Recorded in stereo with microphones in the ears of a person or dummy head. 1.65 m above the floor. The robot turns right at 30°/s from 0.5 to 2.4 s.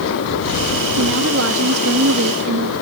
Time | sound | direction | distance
1.0 | a woman speaking | 110° right | ?